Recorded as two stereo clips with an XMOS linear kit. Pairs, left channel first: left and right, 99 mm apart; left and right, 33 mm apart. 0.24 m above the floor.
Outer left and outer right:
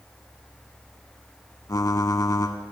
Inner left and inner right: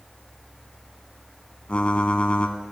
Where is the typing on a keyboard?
35° left (ahead or behind), 0.5 m.